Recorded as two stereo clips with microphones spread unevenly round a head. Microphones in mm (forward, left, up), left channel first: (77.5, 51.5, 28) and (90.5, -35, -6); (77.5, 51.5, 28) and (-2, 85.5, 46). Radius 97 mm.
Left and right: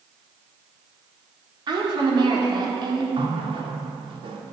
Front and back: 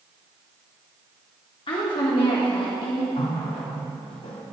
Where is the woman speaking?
55° right, 3 m.